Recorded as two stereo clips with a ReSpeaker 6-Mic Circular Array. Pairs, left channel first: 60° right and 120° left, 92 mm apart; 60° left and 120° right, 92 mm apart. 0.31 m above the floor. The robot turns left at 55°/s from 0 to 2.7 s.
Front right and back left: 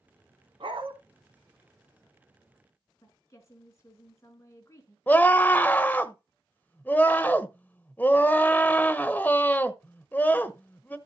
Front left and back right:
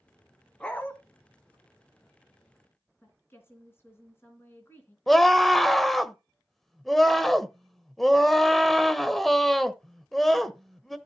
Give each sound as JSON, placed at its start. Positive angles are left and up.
{"t": 0.6, "sound": "a dog barking", "azimuth_deg": 140, "distance_m": 1.3}
{"t": 3.0, "sound": "a woman speaking", "azimuth_deg": -5, "distance_m": 3.5}
{"t": 5.1, "sound": "a scream", "azimuth_deg": -25, "distance_m": 0.9}